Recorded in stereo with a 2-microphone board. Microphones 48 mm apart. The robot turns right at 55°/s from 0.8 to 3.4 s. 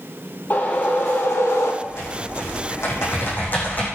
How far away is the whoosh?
About 4 m.